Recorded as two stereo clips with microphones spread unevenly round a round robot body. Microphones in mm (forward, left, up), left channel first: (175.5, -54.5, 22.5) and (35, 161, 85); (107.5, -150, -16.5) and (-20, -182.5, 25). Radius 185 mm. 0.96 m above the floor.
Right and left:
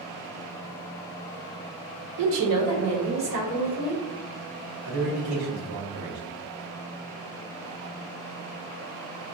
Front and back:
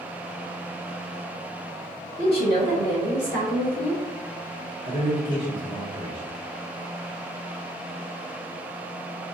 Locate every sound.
2.2 s a woman speaking: 140° left, 0.5 m; by 4.0 s 165° left, 3 m
4.8 s a man speaking: 160° left, 1.4 m